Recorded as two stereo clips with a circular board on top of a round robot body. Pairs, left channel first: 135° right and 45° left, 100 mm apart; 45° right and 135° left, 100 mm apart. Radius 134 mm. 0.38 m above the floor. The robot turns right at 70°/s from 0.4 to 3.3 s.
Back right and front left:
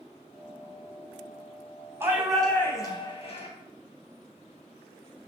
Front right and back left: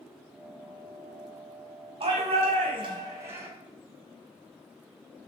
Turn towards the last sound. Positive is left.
turn(degrees=-160)